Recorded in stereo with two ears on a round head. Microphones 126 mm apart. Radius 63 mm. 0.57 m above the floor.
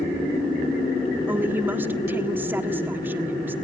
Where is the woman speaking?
15° right (ahead or behind), 1.3 m.